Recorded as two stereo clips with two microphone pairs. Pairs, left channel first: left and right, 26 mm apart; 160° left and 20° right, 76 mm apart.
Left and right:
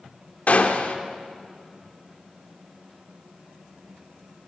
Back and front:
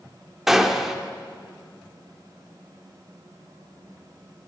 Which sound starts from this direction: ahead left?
A gunshot, at 0.5 s.